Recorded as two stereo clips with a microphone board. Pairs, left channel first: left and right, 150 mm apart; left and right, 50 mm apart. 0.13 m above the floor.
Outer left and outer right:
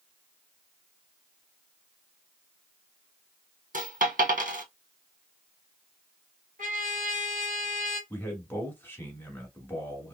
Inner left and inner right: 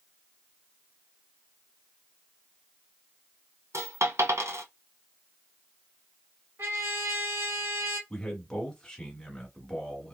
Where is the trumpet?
60° right (ahead or behind), 2.0 m.